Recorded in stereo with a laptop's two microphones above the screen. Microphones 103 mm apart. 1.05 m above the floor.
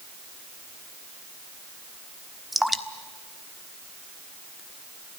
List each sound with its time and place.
2.5 s dripping: centre (ahead or behind), 1.3 m